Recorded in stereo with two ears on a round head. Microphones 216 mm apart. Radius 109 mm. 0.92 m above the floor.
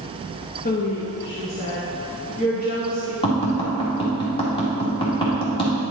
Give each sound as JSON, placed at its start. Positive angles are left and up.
{"t": 0.7, "sound": "a woman speaking", "side_deg": 35, "distance_m": 0.7}
{"t": 3.2, "sound": "tapping", "side_deg": 25, "distance_m": 1.8}